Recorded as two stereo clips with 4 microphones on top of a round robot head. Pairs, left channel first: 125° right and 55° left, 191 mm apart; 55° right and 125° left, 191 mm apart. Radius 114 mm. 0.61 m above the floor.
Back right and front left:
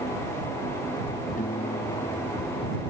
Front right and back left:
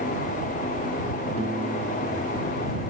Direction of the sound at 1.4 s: 175° right.